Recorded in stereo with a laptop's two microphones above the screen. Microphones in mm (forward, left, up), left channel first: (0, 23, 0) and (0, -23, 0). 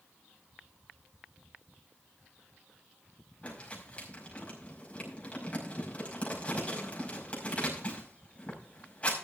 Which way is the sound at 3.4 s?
30° left (ahead or behind).